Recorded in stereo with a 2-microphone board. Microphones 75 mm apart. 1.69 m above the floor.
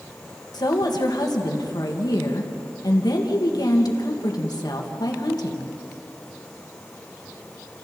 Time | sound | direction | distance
0.5 | a woman speaking | 65° left (ahead or behind) | 2.5 m